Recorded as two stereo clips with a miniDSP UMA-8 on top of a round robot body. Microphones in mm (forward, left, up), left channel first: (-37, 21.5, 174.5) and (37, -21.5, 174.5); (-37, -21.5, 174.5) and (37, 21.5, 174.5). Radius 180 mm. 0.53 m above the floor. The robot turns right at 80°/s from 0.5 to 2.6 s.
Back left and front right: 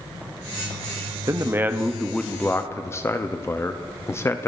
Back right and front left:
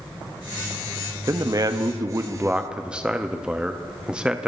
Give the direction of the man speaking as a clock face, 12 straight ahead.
12 o'clock.